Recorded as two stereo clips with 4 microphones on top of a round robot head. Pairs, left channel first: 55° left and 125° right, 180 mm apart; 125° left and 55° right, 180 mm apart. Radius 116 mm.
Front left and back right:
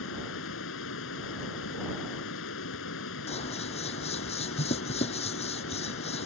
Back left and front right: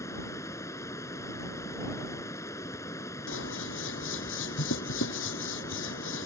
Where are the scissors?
115° left.